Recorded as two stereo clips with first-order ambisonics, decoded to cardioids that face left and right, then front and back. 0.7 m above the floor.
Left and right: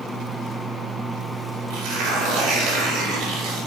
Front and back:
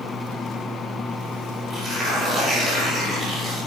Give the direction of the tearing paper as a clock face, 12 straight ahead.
4 o'clock.